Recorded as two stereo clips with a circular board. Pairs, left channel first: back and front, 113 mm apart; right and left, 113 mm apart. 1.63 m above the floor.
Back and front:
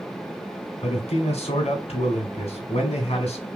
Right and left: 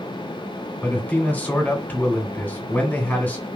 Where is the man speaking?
165° right, 2 m.